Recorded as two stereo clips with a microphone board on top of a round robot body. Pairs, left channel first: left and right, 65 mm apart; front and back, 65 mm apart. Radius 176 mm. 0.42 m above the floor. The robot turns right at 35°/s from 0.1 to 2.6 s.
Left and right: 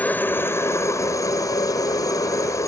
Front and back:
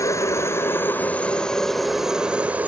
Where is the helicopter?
30° left; by 2.7 s 115° left.